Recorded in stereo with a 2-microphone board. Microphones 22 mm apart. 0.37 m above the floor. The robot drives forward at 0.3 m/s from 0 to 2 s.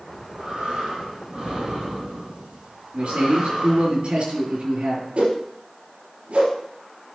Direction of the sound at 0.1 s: 75° right (ahead or behind).